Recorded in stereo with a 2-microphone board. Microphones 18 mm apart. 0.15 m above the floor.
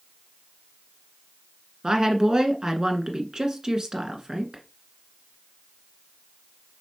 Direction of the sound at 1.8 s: 40° right (ahead or behind).